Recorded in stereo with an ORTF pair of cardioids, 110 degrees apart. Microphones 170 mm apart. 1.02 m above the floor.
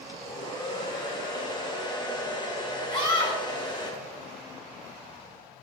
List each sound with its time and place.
0.1 s a hair dryer: 25° left, 2 m
2.9 s a scream: 30° left, 4 m